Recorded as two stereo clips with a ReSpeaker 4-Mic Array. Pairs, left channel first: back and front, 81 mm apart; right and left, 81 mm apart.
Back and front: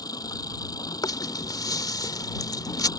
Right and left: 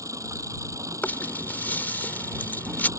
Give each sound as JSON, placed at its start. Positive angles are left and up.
{"t": 0.0, "sound": "an engine running", "azimuth_deg": 140}
{"t": 1.0, "sound": "a rattle", "azimuth_deg": -155}